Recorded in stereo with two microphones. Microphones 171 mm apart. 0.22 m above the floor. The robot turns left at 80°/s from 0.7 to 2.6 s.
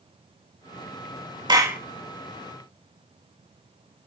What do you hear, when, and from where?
1.5 s a clap: 25° right (ahead or behind), 1.9 m; by 1.8 s 10° right (ahead or behind), 1.9 m